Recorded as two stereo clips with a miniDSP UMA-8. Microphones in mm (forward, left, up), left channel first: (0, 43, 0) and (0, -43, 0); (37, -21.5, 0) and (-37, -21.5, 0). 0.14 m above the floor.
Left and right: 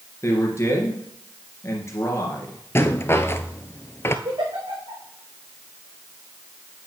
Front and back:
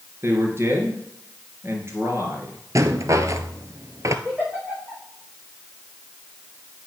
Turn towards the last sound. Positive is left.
turn(degrees=-95)